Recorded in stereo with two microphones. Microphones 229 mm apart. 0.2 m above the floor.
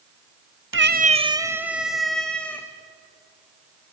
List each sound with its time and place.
0.7 s a cat meowing: 60° right (ahead or behind), 0.7 m; by 2.7 s 5° left (ahead or behind), 3 m